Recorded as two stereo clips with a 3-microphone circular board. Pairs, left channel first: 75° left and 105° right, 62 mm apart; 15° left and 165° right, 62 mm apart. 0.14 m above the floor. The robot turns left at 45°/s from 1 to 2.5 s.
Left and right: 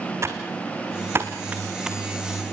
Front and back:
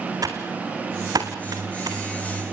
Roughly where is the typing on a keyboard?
Behind right.